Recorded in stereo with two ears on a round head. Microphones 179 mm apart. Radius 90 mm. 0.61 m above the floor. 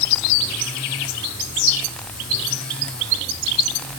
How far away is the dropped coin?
I don't hear a dropped coin.